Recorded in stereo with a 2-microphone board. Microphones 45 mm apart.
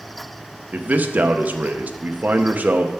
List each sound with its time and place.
0.7 s a man speaking: 35° right (ahead or behind), 0.7 m